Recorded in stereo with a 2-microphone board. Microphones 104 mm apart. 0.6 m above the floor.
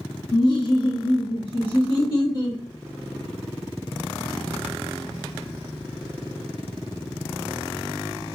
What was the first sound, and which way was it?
Laughter, 40° left (ahead or behind).